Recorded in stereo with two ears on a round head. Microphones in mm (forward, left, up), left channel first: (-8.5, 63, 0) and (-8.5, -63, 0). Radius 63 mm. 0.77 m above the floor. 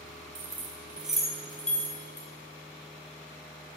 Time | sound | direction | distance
0.3 | keys jangling | 20° right (ahead or behind) | 2.0 m